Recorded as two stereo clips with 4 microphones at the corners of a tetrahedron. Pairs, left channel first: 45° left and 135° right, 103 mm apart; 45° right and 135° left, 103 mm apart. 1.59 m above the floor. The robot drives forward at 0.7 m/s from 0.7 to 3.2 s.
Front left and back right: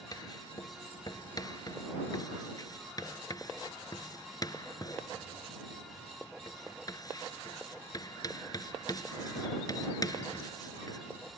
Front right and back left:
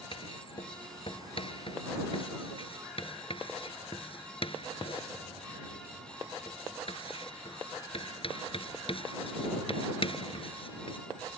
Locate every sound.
0.1 s writing: 10° right